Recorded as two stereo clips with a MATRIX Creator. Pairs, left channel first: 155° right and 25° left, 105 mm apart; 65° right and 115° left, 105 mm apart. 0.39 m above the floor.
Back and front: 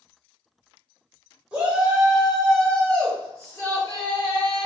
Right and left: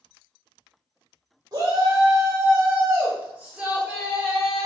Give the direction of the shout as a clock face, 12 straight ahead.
9 o'clock.